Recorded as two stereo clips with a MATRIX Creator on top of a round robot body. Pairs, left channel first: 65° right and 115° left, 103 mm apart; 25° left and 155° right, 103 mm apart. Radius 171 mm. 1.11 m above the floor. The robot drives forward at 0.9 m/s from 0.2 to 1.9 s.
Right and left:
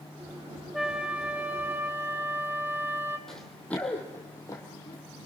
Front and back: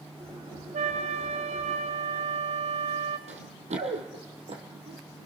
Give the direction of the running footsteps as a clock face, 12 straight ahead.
5 o'clock.